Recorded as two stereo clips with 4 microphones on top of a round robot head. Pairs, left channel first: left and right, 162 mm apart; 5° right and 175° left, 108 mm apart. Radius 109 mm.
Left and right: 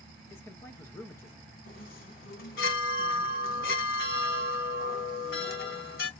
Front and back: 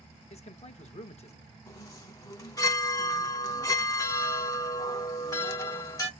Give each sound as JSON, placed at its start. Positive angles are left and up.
{"t": 0.3, "sound": "a man speaking", "azimuth_deg": 15, "distance_m": 1.3}
{"t": 1.7, "sound": "a chime", "azimuth_deg": 45, "distance_m": 1.2}